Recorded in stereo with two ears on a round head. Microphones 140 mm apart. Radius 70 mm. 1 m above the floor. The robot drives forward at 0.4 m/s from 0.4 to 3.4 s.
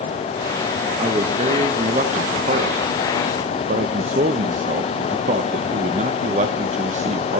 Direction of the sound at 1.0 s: 40° right (ahead or behind).